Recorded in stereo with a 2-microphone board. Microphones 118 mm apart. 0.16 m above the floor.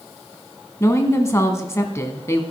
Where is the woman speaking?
25° left (ahead or behind), 1.1 m.